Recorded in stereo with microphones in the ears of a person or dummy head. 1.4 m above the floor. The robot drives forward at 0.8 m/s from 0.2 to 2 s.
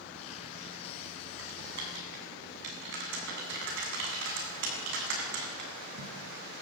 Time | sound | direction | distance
1.4 | typing on a keyboard | 70° right (ahead or behind) | 7.5 m